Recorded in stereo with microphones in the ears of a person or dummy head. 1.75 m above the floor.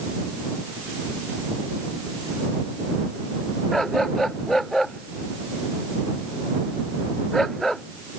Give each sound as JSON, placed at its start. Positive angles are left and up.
{"t": 3.7, "sound": "a dog barking", "side_deg": 0}